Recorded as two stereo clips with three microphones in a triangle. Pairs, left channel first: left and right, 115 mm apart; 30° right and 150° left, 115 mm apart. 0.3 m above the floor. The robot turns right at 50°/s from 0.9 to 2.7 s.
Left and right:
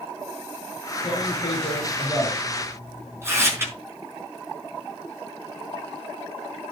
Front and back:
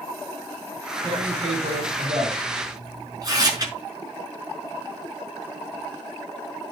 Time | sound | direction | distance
1.0 | tearing paper | 120° left | 5 m